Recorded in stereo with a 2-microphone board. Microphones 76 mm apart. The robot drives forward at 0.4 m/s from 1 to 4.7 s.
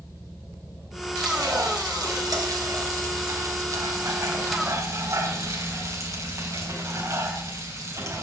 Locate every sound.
1.2 s frying: 60° right (ahead or behind), 2.5 m; by 8.2 s 45° right (ahead or behind), 3.5 m